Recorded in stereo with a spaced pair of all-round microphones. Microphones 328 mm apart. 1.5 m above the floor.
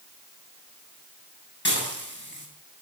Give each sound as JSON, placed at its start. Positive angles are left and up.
{"t": 1.6, "sound": "dishes clattering", "side_deg": 35, "distance_m": 7.5}